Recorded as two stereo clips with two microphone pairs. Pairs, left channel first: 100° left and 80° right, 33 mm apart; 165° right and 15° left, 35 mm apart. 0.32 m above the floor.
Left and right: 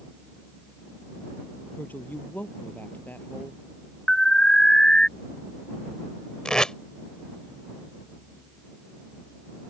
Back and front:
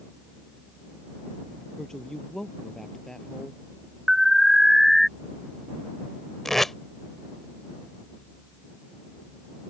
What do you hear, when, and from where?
1.8 s a woman speaking: 120° left
4.1 s an alarm: 105° left
6.5 s tape being pulled: 125° left